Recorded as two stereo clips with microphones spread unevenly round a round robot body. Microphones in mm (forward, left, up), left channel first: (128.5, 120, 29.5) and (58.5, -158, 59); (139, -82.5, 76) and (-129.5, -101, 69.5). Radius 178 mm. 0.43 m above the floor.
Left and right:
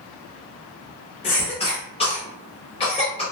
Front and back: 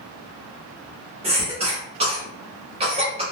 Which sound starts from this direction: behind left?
A cough, at 1.2 s.